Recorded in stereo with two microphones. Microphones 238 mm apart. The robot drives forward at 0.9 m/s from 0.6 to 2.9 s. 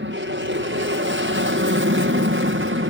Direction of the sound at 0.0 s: 55° right (ahead or behind).